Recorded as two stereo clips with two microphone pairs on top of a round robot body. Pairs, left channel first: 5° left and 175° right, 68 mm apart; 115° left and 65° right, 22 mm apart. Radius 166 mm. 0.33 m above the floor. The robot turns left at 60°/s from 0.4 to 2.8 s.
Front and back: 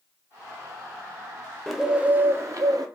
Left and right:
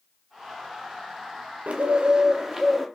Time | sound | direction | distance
1.7 | a bird | 90° right | 0.7 m